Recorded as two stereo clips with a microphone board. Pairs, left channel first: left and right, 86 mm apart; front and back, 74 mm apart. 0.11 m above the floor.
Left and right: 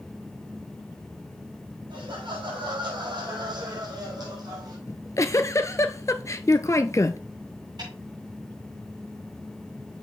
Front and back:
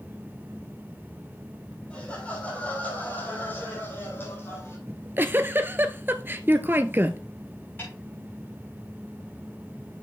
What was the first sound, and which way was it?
Laughter, 75° right.